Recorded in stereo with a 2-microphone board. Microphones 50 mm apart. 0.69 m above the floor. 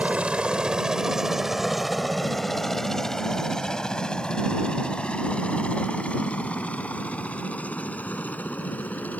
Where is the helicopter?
25° right (ahead or behind); by 9.2 s 30° left (ahead or behind).